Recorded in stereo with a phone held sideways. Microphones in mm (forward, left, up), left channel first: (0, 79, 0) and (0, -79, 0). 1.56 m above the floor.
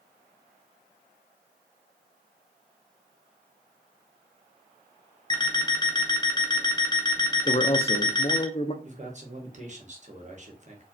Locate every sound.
5.3 s an alarm clock: 25° left (ahead or behind), 0.8 m
7.5 s a man speaking: 40° left (ahead or behind), 0.7 m
8.8 s a man speaking: 45° right (ahead or behind), 1.4 m